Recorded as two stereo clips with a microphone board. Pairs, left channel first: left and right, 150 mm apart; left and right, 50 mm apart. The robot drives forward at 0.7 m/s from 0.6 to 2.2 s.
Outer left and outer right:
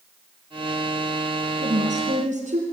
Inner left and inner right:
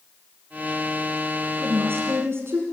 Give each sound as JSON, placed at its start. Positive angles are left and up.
{"t": 1.6, "sound": "a woman speaking", "side_deg": -50, "distance_m": 2.5}